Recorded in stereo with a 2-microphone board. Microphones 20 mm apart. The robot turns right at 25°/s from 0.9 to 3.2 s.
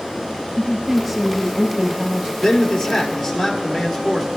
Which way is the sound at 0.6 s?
175° right.